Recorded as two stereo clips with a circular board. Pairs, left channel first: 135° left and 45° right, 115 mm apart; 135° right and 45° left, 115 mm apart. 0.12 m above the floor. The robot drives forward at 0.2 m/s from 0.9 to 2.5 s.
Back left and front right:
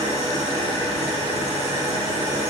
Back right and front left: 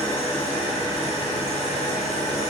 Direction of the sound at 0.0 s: 105° right.